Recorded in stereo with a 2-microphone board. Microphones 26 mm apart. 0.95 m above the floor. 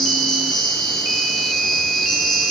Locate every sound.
0.0 s an insect: 10° left (ahead or behind), 8 m